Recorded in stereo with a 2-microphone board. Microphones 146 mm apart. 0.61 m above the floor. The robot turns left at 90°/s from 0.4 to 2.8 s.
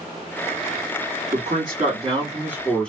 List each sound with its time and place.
1.3 s a man speaking: 55° right, 1.6 m; by 2.9 s 170° left, 1.6 m